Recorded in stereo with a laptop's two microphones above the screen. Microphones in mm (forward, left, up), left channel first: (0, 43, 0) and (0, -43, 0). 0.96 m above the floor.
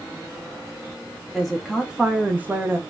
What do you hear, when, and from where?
1.3 s a woman speaking: centre (ahead or behind), 0.8 m; by 2.8 s 30° right (ahead or behind), 0.8 m